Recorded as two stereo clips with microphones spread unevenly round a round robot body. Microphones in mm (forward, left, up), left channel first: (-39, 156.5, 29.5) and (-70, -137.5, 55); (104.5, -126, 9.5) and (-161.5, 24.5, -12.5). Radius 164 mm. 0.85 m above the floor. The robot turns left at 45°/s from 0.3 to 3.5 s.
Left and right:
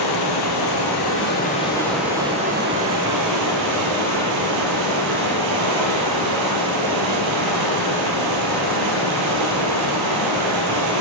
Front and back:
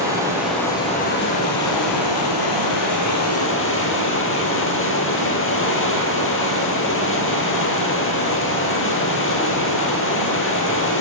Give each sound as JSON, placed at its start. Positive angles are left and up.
{"t": 0.0, "sound": "running water", "azimuth_deg": 70, "distance_m": 2.5}